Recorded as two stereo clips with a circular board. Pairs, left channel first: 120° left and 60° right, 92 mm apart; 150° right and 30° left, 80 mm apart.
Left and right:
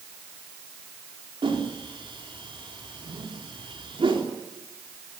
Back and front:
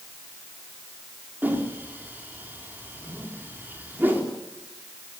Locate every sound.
1.4 s a whoosh: 35° right, 4 m